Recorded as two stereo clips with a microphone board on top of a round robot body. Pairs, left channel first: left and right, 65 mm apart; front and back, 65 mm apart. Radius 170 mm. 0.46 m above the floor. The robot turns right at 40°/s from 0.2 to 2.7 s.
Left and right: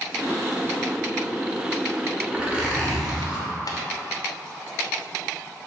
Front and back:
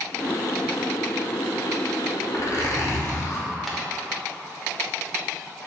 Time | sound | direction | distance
2.3 | a zipper | 25° right | 1.1 m
3.7 | tapping | 90° left | 0.6 m